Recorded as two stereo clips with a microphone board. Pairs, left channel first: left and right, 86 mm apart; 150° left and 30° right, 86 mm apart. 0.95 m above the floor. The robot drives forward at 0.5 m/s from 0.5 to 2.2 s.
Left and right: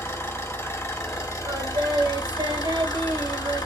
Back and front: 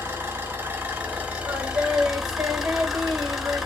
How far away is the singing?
About 1.2 m.